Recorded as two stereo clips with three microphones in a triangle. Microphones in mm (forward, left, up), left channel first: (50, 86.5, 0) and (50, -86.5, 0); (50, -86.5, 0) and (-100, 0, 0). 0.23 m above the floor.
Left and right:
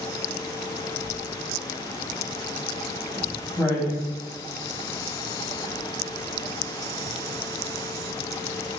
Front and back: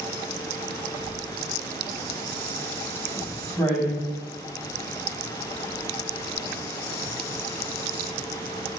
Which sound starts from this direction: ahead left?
Writing, at 1.0 s.